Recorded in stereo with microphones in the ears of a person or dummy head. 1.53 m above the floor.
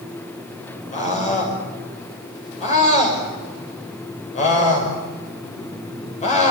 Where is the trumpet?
I don't hear a trumpet.